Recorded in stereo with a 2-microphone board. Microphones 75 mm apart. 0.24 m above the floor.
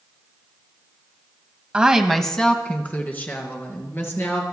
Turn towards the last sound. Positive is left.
turn(degrees=30)  # may be behind; listen again after turning